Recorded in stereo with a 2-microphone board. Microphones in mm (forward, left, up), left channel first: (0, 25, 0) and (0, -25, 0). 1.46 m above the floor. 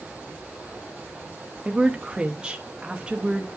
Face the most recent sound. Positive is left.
turn(degrees=-15)  # may be behind; listen again after turning